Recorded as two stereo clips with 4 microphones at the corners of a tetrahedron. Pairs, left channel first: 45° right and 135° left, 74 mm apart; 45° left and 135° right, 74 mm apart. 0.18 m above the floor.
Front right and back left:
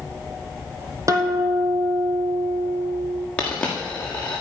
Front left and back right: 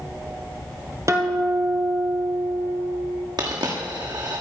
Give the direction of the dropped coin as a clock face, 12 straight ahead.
4 o'clock.